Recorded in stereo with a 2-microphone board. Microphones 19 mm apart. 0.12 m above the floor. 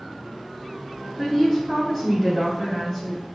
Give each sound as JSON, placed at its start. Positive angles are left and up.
{"t": 1.2, "sound": "a woman speaking", "side_deg": 15, "distance_m": 1.2}